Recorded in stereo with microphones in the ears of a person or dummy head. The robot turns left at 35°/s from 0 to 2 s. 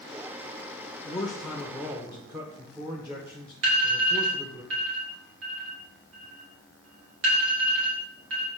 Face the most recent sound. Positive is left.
turn(degrees=-80)